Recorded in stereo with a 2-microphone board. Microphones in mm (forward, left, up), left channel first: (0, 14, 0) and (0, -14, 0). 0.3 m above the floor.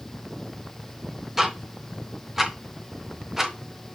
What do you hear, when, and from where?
1.4 s ticking: 10° right (ahead or behind), 0.9 m